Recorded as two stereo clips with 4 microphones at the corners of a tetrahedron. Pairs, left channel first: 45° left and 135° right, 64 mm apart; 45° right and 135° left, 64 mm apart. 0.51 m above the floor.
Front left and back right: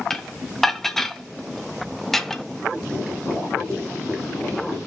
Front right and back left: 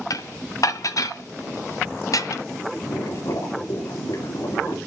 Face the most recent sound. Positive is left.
turn(degrees=-40)